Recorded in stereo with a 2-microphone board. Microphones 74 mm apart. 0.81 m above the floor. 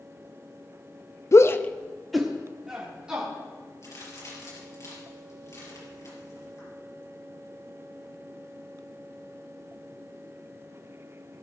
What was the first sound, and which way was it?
A shout, 40° left (ahead or behind).